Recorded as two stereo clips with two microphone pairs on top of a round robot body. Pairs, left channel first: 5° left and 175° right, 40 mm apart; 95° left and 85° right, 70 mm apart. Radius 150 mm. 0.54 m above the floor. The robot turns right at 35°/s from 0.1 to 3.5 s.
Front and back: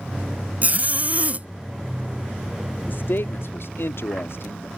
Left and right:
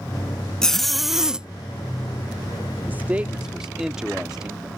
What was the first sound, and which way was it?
A zipper, 175° left.